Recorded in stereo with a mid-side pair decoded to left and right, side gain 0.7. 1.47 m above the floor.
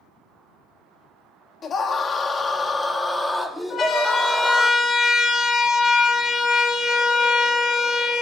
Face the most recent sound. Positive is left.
turn(degrees=35)